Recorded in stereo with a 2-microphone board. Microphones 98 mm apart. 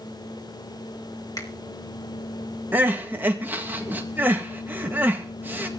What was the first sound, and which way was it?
A finger snap, 35° left (ahead or behind).